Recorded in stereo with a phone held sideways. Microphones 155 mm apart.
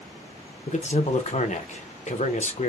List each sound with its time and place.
0.7 s a man speaking: 50° left (ahead or behind), 0.5 m